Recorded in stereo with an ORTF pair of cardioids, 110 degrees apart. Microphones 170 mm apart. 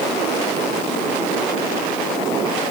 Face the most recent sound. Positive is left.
No sound to turn to.